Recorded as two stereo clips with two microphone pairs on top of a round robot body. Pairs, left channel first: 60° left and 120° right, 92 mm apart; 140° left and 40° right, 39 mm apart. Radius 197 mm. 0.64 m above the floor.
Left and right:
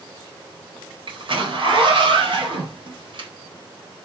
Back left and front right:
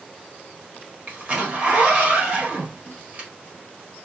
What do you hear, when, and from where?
1.1 s a zipper: 100° right, 1.3 m